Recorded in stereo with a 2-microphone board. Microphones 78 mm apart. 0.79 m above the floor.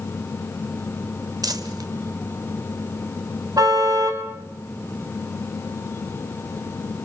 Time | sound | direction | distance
1.4 | crumpling | 50° right (ahead or behind) | 1.8 m
3.6 | a car horn | 50° right (ahead or behind) | 3.5 m